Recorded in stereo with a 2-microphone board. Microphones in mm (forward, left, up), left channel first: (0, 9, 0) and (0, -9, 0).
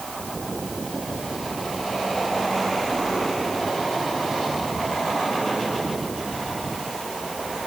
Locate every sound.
Only background noise.